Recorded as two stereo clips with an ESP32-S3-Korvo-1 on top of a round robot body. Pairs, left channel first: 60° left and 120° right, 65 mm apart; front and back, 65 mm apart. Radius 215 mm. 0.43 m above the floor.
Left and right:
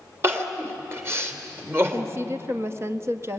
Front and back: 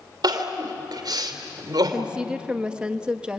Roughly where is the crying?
Behind.